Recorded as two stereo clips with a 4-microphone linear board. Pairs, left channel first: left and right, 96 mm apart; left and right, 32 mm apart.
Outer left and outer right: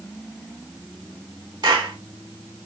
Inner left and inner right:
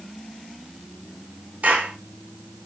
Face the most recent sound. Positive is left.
turn(degrees=-45)  # may be behind; listen again after turning